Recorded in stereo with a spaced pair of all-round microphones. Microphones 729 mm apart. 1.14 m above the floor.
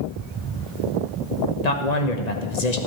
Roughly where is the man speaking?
Left.